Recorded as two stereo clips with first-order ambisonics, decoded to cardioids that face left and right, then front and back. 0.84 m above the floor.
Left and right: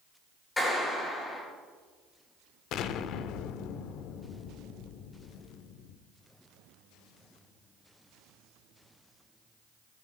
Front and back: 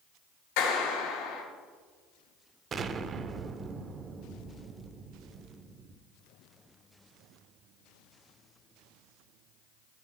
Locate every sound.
0.6 s a clap: 10° left, 4.5 m
2.7 s an explosion: 120° left, 0.6 m